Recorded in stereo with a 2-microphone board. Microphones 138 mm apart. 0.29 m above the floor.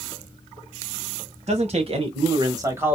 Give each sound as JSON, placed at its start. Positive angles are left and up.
{"t": 1.5, "sound": "a man speaking", "side_deg": -55, "distance_m": 1.4}